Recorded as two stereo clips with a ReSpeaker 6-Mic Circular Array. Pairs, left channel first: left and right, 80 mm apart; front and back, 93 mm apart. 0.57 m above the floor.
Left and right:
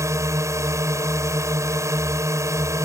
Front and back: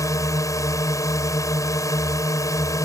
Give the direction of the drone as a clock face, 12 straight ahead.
2 o'clock.